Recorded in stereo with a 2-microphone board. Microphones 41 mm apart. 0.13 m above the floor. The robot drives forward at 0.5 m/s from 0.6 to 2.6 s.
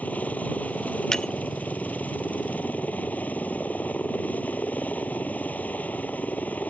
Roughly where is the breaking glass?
Centre.